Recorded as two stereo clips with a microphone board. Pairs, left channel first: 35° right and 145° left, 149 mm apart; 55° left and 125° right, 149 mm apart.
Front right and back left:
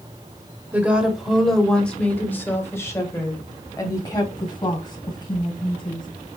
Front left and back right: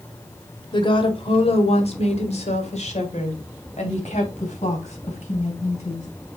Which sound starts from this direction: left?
A woman speaking, at 0.7 s.